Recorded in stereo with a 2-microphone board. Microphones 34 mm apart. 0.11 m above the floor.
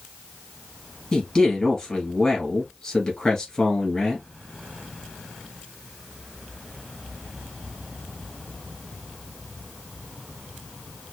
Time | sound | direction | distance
1.1 | a man speaking | 20° left (ahead or behind) | 1.5 m